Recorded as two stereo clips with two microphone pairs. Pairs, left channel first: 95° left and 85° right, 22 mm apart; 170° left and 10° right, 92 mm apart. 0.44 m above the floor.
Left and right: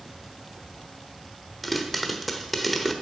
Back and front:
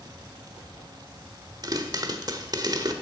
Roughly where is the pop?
Ahead.